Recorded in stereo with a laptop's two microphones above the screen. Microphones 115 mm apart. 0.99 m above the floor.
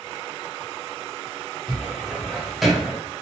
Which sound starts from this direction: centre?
A cupboard door, at 1.7 s.